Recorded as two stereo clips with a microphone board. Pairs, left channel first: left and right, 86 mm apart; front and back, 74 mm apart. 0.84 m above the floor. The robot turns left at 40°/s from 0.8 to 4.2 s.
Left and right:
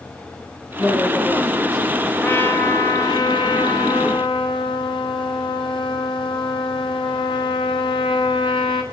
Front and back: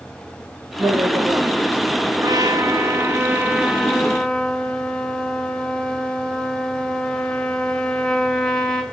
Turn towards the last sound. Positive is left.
turn(degrees=80)